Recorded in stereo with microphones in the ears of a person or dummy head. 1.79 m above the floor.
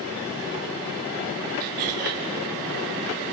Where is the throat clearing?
50° right (ahead or behind), 3.5 m.